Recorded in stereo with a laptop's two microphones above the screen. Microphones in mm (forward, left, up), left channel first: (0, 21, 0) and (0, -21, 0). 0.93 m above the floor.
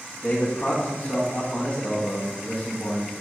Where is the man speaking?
30° left (ahead or behind), 1.1 m.